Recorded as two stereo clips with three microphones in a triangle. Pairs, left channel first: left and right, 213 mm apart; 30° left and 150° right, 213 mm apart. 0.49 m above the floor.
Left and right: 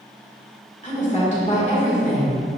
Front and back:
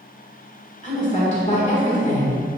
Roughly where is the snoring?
No snoring in this recording.